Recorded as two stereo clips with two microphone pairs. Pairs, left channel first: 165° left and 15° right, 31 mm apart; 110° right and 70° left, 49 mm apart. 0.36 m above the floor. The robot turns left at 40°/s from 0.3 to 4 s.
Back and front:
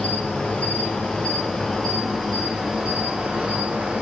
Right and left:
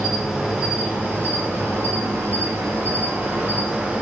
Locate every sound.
0.0 s an insect: 155° left, 1.4 m; by 4.0 s 5° left, 1.4 m